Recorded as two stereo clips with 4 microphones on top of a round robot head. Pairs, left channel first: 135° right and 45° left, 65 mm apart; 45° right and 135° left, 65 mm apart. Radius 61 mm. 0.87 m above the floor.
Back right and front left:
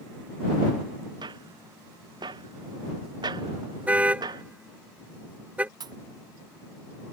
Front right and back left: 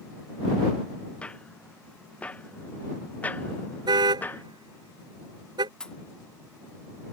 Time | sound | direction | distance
1.2 | footsteps | 30° left | ?
3.9 | a car horn | 120° left | ?
5.8 | a pop | 35° left | ?